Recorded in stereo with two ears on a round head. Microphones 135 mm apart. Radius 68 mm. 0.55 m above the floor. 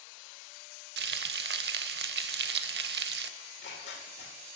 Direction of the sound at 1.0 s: 80° right.